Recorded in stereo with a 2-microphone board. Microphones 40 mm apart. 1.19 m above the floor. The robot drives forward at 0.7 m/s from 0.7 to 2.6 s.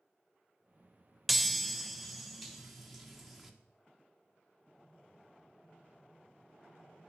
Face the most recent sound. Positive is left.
turn(degrees=0)  # may be behind; listen again after turning